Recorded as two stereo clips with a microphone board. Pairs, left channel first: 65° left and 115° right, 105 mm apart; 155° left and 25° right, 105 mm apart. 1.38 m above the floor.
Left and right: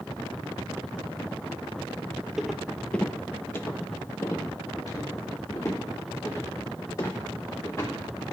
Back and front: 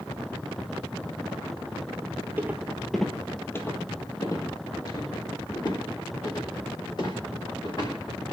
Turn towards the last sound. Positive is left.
turn(degrees=125)